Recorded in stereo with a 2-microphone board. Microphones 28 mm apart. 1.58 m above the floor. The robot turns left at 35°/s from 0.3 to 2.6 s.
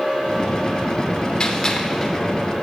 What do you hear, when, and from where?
1.4 s a gunshot: 25° left (ahead or behind), 0.8 m; by 2.2 s centre (ahead or behind), 0.8 m